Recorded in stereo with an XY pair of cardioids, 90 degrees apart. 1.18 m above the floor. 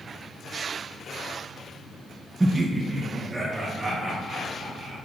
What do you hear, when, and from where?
2.4 s laughter: 15° right, 0.6 m; by 5.0 s 40° right, 4.5 m